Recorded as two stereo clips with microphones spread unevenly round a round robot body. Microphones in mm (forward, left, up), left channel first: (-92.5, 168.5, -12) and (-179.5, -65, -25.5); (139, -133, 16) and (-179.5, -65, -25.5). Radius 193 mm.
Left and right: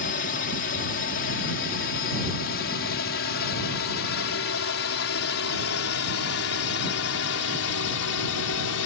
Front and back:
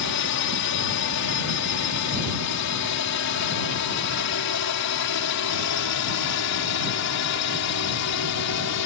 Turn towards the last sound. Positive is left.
turn(degrees=35)